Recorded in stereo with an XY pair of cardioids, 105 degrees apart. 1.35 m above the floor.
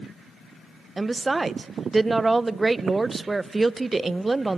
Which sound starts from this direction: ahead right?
A woman speaking, at 1.0 s.